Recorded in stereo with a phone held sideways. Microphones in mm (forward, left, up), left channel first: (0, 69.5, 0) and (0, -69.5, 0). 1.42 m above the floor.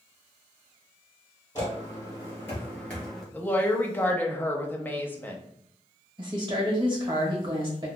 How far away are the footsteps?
About 1.8 m.